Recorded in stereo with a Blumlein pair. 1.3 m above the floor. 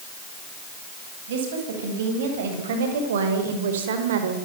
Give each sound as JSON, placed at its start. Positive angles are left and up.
{"t": 1.3, "sound": "a woman speaking", "azimuth_deg": -60, "distance_m": 10.0}